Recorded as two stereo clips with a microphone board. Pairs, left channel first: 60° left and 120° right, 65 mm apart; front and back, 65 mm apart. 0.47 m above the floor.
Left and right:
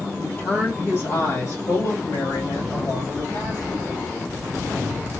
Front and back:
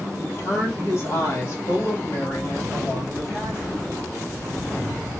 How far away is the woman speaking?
About 1.6 m.